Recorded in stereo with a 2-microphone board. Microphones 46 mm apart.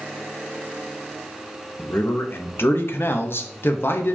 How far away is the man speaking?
About 1.2 m.